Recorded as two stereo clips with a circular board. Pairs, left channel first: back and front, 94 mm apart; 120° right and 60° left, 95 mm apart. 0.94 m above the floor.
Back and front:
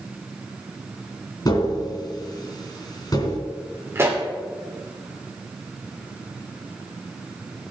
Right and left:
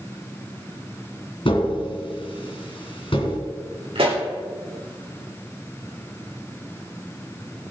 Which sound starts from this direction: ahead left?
A pop, at 4.0 s.